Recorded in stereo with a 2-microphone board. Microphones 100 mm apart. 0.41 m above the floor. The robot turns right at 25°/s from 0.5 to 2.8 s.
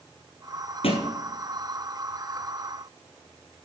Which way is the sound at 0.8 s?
70° left (ahead or behind).